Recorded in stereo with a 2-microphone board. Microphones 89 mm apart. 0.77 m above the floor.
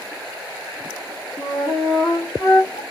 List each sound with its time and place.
1.4 s a flute: 55° left (ahead or behind), 1.5 m